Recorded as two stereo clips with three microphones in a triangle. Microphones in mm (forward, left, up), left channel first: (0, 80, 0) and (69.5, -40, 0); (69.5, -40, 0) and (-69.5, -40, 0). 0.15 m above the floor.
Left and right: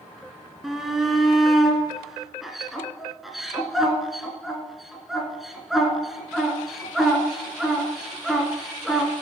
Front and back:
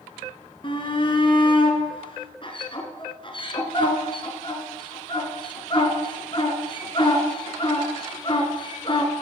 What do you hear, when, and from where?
0.6 s a shout: 30° left, 1.4 m